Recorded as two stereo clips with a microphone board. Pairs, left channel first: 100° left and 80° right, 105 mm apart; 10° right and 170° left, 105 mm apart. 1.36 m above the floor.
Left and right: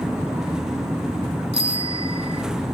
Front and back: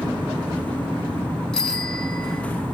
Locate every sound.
1.5 s a bicycle bell: 90° right, 2 m